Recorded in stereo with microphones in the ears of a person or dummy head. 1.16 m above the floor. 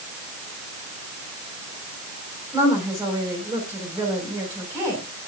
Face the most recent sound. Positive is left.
turn(degrees=-15)  # may be behind; listen again after turning